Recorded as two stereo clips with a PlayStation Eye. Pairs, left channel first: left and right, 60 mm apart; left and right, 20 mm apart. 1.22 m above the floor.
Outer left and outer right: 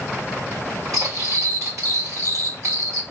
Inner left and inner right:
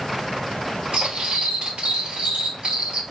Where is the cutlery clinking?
75° right (ahead or behind), 2.5 m.